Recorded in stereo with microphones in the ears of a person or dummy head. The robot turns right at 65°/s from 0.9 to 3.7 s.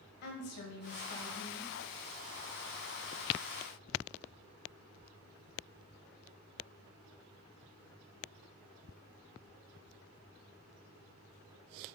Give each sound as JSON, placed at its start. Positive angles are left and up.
{"t": 0.2, "sound": "a woman speaking", "azimuth_deg": 125, "distance_m": 1.0}